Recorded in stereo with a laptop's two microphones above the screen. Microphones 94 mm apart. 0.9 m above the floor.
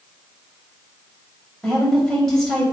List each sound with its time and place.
1.6 s a woman speaking: 5° left (ahead or behind), 4 m